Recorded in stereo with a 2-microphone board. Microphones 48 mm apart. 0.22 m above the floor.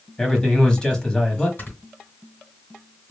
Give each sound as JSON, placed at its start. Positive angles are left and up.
{"t": 0.2, "sound": "a man speaking", "side_deg": 15, "distance_m": 1.0}
{"t": 1.6, "sound": "snoring", "side_deg": 45, "distance_m": 2.5}